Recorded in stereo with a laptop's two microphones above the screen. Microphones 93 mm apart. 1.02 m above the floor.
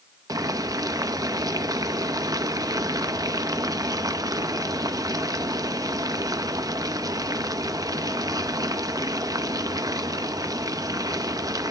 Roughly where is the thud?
I don't hear a thud.